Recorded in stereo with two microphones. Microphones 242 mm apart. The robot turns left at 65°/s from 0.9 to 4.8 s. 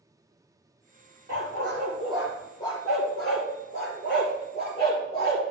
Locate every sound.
1.3 s a dog barking: 70° right (ahead or behind), 4.5 m; by 5.4 s 25° left (ahead or behind), 4.5 m